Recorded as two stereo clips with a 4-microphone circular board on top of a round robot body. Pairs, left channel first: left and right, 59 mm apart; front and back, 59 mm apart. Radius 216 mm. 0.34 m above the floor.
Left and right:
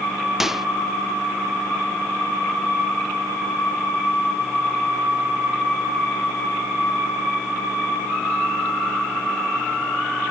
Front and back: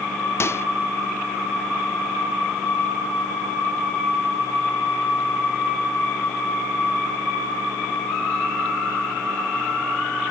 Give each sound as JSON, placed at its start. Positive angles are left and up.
{"t": 0.4, "sound": "a microwave", "azimuth_deg": -5}